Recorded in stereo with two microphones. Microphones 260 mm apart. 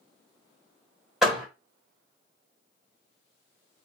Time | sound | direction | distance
1.2 | a door slam | centre (ahead or behind) | 1.1 m